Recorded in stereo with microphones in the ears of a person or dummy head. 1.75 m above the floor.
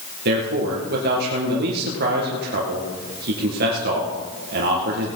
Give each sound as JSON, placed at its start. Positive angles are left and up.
{"t": 0.2, "sound": "a man speaking", "side_deg": -60, "distance_m": 2.0}